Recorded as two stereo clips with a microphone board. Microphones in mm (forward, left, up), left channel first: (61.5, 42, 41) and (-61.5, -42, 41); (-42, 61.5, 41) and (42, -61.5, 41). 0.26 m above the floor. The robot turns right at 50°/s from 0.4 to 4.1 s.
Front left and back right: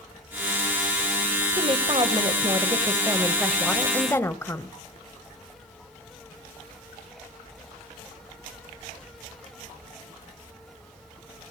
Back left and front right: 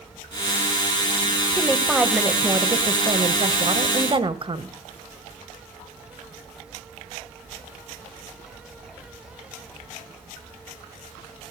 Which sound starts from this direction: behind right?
A woman speaking, at 1.6 s.